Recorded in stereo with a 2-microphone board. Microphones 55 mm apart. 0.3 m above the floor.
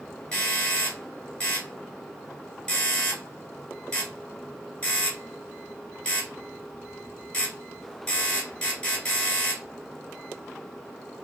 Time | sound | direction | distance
0.3 | a doorbell | 20° left (ahead or behind) | 1.9 m